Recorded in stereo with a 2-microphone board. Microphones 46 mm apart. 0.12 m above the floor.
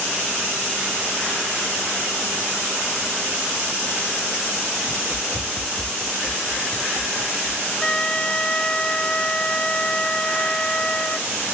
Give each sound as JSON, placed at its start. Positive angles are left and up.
{"t": 4.9, "sound": "running footsteps", "side_deg": -55}
{"t": 7.8, "sound": "a flute", "side_deg": 20}